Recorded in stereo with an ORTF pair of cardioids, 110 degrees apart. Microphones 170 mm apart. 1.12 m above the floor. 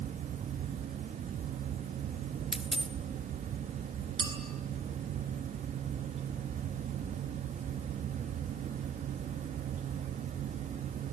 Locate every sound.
0.0 s a fan: 50° right, 1.1 m
2.5 s a dropped coin: straight ahead, 1.9 m
4.2 s a clink: 30° right, 4 m